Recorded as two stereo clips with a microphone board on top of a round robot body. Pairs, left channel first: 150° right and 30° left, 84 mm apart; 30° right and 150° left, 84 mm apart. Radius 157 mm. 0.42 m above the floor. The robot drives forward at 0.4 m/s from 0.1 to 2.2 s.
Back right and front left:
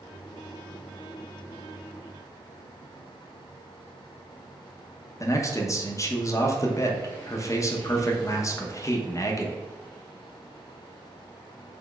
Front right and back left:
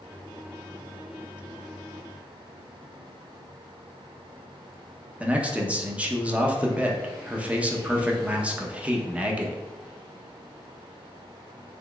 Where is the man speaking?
145° right, 1.0 m.